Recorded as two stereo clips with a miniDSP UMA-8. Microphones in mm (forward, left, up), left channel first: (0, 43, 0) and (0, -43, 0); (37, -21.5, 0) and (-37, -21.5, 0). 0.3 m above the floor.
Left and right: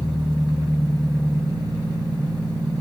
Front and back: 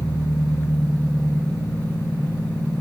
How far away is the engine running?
About 3.5 m.